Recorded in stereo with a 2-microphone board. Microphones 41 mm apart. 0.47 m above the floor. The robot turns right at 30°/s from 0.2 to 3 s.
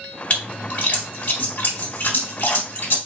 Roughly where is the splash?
Left.